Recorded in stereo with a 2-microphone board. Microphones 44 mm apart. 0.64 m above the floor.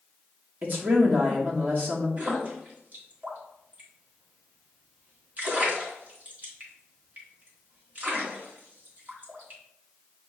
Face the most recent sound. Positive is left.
turn(degrees=-40)  # may be behind; listen again after turning